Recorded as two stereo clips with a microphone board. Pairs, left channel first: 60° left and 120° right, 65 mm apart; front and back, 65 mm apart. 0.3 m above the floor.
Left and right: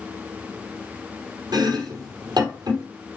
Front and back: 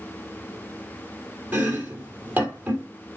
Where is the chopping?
115° right, 2.5 m.